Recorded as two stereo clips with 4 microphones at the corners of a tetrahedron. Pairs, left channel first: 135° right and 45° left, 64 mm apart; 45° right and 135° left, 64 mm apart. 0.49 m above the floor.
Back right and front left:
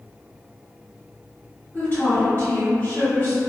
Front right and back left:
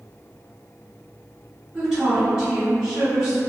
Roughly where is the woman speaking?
Behind right.